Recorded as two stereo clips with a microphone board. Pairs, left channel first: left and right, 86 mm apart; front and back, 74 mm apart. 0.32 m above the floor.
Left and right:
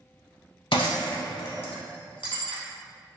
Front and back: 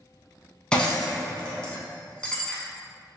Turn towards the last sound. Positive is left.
turn(degrees=75)